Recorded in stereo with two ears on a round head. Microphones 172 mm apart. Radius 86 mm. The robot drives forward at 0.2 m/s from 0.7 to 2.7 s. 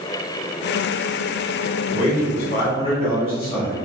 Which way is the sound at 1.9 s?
30° left (ahead or behind).